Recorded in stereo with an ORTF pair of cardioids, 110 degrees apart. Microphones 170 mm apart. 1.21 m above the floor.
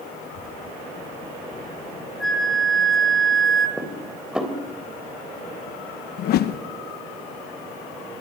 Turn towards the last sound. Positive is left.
turn(degrees=65)